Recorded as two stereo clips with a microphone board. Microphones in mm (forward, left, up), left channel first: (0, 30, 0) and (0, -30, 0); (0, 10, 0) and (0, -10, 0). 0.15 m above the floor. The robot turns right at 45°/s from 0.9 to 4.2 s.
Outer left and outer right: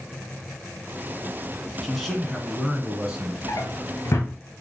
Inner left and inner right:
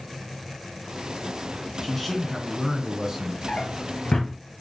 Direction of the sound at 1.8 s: 5° left (ahead or behind).